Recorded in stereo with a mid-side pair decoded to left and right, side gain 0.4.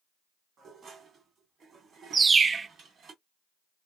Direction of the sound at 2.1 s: 40° right.